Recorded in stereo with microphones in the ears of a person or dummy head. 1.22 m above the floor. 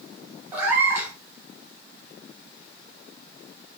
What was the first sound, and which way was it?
A cat meowing, 15° right (ahead or behind).